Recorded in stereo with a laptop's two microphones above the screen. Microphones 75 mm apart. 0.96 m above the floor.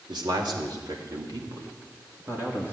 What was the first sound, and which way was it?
A man speaking, 70° right (ahead or behind).